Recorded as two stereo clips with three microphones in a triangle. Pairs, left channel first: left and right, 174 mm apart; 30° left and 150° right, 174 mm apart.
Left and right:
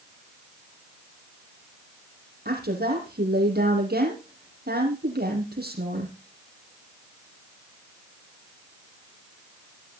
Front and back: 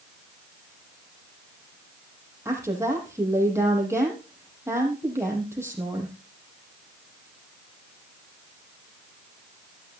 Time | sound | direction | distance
2.5 | a woman speaking | 75° right | 6.5 m